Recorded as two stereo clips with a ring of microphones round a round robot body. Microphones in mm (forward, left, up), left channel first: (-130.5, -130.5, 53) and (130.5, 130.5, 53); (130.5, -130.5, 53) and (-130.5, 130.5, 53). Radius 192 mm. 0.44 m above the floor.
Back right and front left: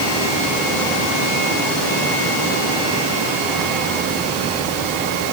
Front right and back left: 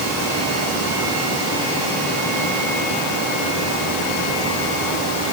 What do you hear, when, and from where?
Only background noise.